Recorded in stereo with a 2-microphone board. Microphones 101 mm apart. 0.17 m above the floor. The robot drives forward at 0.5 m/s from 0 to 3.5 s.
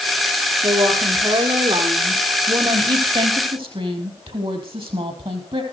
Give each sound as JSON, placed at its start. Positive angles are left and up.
{"t": 0.6, "sound": "a woman speaking", "side_deg": -60, "distance_m": 5.0}